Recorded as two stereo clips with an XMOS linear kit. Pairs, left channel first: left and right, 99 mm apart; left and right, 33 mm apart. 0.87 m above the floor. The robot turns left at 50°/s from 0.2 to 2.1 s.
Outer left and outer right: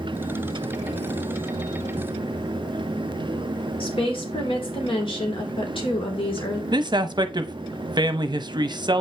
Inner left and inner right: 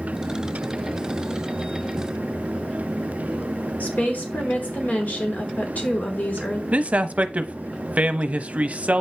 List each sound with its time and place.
3.8 s a woman speaking: 65° left (ahead or behind), 2.5 m
6.7 s a man speaking: 50° right (ahead or behind), 0.8 m